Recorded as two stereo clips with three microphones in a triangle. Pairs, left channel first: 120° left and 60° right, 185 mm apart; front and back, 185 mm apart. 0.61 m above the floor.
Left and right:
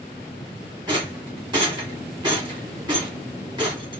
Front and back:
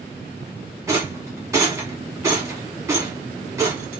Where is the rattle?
115° right, 1.2 m.